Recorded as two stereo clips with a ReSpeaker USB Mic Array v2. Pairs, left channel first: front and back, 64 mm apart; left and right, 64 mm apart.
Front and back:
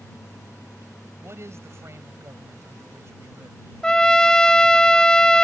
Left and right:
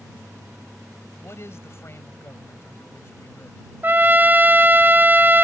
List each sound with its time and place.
1.2 s a man speaking: 135° left
3.8 s a trumpet: 65° right